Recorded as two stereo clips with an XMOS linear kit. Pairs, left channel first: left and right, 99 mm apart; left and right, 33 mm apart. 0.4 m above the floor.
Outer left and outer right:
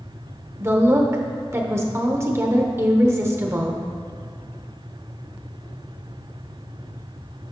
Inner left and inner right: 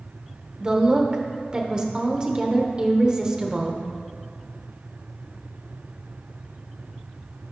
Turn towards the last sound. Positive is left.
turn(degrees=-25)  # may be behind; listen again after turning